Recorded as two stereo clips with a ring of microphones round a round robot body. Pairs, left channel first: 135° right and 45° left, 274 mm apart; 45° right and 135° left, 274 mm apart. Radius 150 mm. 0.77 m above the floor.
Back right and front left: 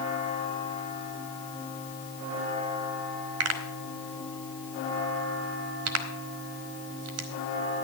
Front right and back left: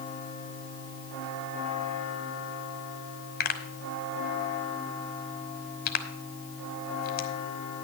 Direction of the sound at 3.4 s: 10° left.